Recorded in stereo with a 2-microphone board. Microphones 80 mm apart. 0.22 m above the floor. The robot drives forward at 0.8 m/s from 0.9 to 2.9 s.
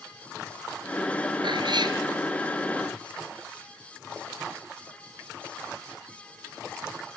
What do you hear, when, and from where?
1.4 s a cat meowing: 70° right (ahead or behind), 1.9 m; by 2.0 s 65° right (ahead or behind), 2 m